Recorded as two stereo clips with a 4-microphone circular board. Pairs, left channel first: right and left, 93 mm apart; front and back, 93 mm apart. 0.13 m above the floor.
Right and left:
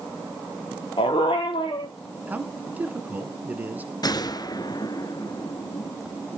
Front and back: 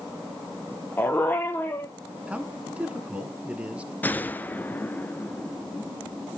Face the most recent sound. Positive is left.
turn(degrees=-65)